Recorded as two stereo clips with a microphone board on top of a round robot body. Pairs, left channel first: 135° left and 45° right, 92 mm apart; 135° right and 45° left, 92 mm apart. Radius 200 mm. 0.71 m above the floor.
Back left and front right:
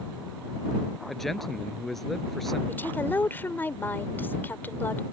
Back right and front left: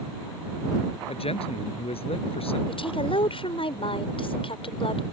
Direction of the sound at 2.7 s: 155° right.